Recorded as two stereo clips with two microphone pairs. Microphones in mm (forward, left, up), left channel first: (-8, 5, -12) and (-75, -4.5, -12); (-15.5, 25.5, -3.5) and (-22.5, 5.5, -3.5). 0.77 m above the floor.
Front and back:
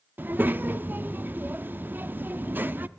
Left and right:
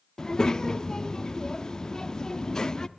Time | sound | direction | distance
0.2 | a child speaking | 130° left | 0.6 m